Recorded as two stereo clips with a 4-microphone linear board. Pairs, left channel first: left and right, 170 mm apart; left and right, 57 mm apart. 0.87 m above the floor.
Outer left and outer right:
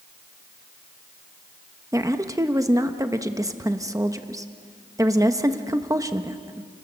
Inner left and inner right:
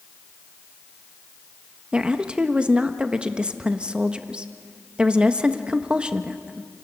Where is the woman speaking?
20° right (ahead or behind), 1.1 m.